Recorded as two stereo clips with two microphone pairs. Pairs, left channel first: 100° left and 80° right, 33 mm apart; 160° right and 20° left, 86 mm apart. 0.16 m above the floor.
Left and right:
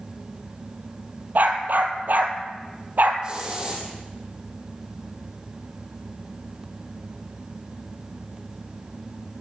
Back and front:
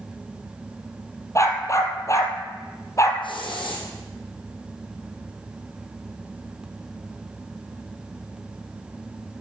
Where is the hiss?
145° right, 5 m.